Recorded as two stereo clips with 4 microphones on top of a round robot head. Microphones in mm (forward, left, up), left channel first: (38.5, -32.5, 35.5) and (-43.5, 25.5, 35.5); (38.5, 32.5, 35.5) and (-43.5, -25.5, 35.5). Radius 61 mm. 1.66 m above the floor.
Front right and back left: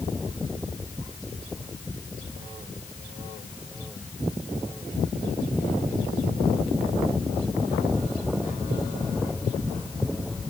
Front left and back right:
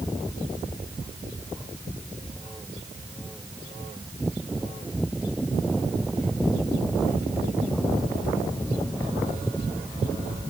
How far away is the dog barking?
I don't hear a dog barking.